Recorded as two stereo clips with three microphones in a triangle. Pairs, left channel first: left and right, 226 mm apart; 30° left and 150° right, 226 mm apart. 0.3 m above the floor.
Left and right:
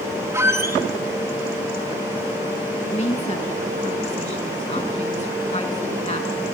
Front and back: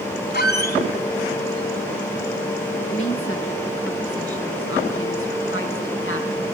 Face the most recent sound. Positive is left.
turn(degrees=35)